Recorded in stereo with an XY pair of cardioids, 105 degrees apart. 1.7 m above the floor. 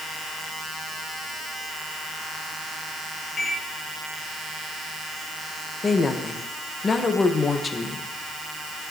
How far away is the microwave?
About 2 m.